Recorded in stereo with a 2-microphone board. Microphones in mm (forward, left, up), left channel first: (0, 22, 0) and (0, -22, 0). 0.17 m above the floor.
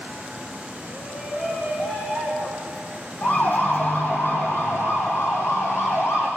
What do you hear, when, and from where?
0.9 s a shout: 55° left (ahead or behind), 7.5 m; by 2.9 s 40° left (ahead or behind), 8 m
3.2 s a siren: 45° left (ahead or behind), 5.5 m; by 6.3 s 80° left, 6 m